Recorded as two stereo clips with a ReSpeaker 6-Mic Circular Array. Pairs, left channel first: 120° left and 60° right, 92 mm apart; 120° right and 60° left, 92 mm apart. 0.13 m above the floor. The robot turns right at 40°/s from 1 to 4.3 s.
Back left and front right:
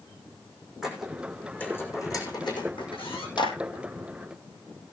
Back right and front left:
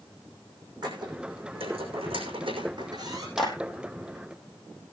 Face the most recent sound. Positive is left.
turn(degrees=-175)